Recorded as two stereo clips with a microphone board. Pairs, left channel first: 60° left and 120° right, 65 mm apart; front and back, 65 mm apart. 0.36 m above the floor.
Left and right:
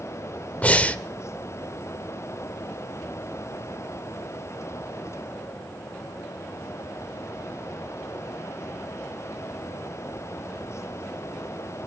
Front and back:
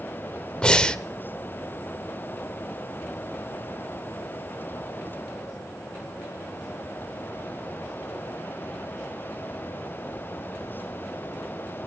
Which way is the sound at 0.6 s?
50° left.